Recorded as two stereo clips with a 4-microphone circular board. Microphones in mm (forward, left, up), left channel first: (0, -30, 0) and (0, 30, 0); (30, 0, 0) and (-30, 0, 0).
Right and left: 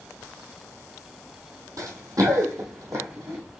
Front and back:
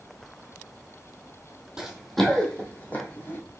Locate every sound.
1.8 s running footsteps: 100° left, 1.3 m; by 3.4 s 50° left, 2 m